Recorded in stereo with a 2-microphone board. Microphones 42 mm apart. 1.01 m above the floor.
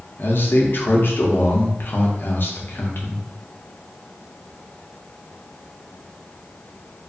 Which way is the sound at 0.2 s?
55° left (ahead or behind).